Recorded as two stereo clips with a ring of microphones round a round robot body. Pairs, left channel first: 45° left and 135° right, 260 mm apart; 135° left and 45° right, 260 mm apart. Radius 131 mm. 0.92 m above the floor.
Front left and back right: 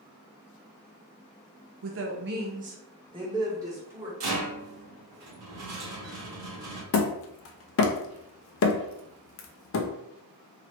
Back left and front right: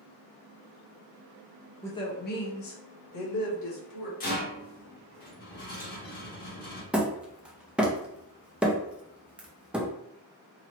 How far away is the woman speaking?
About 0.6 m.